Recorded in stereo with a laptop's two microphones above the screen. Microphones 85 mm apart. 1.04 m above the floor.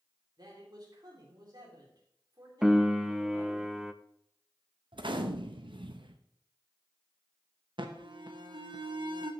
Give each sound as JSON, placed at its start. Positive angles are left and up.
{"t": 0.4, "sound": "a man speaking", "side_deg": -55, "distance_m": 2.5}
{"t": 2.6, "sound": "a piano", "side_deg": -5, "distance_m": 0.5}
{"t": 4.9, "sound": "a gunshot", "side_deg": -75, "distance_m": 0.6}
{"t": 7.8, "sound": "an alarm", "side_deg": -75, "distance_m": 0.9}